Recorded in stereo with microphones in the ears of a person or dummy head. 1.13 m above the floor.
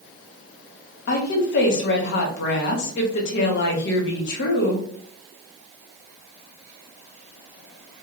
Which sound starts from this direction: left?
A woman speaking, at 1.1 s.